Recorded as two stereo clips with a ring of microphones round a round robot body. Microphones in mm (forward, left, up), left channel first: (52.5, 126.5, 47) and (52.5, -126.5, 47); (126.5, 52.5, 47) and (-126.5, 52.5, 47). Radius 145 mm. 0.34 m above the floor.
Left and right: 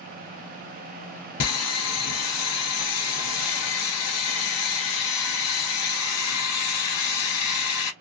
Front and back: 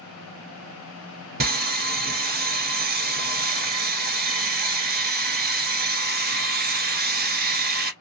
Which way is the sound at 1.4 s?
125° left.